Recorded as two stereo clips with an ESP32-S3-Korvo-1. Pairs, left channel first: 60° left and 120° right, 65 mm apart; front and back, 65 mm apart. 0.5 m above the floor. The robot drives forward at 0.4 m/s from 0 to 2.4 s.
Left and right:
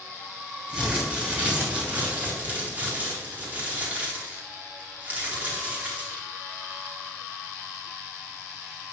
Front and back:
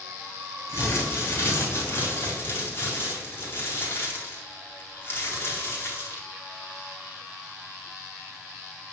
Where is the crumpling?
45° right, 4.5 m; by 6.3 s 55° right, 4 m.